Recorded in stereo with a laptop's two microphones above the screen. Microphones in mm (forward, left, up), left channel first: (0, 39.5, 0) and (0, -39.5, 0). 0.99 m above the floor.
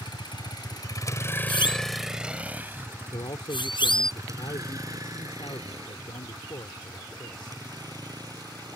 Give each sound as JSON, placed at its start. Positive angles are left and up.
{"t": 0.0, "sound": "a vehicle", "side_deg": 80}
{"t": 1.5, "sound": "a siren", "side_deg": 75}
{"t": 3.1, "sound": "a man speaking", "side_deg": 80}